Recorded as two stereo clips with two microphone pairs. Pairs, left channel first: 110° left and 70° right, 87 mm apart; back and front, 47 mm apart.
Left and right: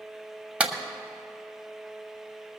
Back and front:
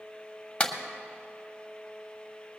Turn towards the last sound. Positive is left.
turn(degrees=-135)